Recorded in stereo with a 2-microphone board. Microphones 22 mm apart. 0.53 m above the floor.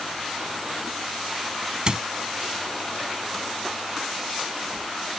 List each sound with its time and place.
1.9 s a squeak: 45° right (ahead or behind)